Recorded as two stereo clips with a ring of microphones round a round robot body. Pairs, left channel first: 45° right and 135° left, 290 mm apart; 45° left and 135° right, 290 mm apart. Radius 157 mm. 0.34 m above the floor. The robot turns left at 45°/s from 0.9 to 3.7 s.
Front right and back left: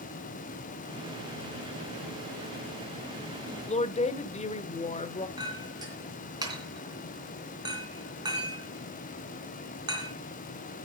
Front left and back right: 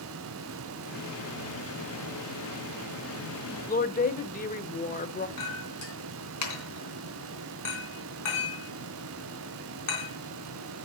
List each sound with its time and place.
3.7 s a woman speaking: 5° left, 0.9 m
5.4 s a clink: 60° left, 3 m